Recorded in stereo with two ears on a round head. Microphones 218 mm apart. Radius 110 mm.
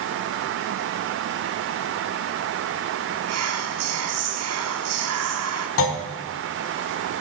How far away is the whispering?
About 0.9 m.